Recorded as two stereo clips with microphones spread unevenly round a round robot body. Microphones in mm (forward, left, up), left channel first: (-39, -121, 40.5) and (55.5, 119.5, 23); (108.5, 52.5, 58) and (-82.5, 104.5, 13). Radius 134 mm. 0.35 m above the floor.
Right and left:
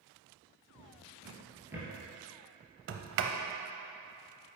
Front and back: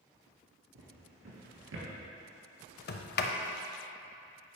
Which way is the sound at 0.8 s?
150° left.